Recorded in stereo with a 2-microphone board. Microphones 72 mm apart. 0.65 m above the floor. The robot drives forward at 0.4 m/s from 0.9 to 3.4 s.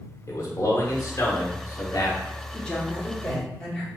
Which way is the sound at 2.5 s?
15° left (ahead or behind).